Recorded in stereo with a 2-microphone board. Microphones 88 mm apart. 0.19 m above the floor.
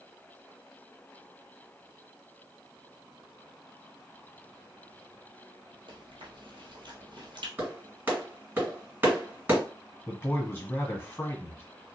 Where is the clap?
20° right (ahead or behind), 2 m.